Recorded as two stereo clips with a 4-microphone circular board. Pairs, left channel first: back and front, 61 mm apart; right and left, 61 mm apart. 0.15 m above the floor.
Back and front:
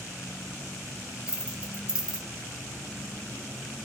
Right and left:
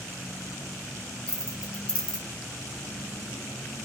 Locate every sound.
1.3 s keys jangling: 50° right, 0.7 m